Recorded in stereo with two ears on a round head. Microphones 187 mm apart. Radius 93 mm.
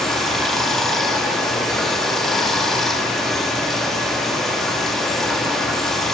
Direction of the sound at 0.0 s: Centre (ahead or behind).